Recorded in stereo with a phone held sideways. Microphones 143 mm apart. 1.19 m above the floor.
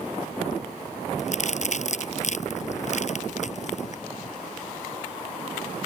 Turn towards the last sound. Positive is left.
turn(degrees=55)  # may be behind; listen again after turning